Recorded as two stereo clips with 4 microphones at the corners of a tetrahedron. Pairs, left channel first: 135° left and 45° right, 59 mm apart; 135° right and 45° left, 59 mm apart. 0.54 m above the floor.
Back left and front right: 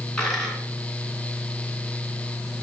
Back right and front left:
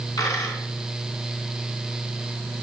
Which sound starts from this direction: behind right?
A dropped coin, at 0.2 s.